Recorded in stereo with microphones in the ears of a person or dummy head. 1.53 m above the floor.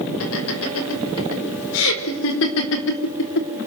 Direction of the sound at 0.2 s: 90° left.